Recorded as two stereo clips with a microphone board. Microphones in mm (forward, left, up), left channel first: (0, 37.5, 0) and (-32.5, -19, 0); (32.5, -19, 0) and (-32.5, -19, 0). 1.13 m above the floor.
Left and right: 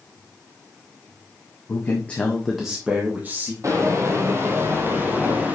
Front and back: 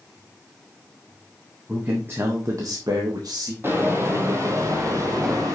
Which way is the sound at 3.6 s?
135° right.